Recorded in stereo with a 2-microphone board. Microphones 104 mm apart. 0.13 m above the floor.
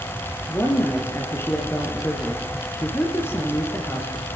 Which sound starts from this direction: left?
A woman speaking, at 0.5 s.